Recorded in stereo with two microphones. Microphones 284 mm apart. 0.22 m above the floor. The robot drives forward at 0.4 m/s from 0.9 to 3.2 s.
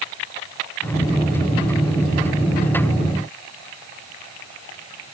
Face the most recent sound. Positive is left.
No sound to turn to.